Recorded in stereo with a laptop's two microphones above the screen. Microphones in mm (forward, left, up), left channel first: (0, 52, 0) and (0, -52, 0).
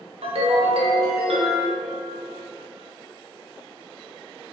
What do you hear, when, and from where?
0.2 s a ringtone: 70° right (ahead or behind), 0.6 m